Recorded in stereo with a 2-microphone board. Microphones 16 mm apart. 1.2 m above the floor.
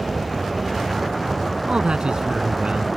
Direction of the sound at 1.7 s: 80° right.